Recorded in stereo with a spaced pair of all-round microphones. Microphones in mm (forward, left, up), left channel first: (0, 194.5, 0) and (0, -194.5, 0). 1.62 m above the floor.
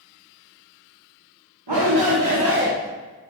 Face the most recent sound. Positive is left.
turn(degrees=-25)  # may be behind; listen again after turning